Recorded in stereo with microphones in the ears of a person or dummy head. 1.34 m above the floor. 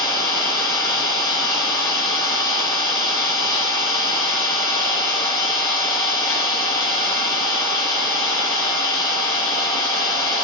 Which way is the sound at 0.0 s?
15° left (ahead or behind).